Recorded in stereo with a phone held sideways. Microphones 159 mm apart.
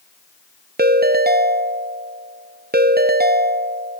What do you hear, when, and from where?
0.8 s a ringtone: 80° right, 0.6 m